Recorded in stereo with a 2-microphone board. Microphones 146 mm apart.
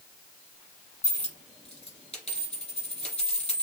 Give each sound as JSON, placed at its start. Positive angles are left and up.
{"t": 1.0, "sound": "a dropped coin", "side_deg": 50, "distance_m": 3.5}